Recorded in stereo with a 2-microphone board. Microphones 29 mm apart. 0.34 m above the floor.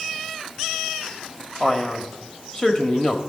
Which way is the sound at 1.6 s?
25° left (ahead or behind).